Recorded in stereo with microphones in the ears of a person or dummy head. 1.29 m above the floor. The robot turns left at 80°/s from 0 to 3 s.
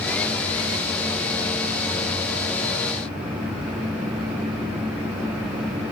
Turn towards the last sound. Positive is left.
No sound to turn to.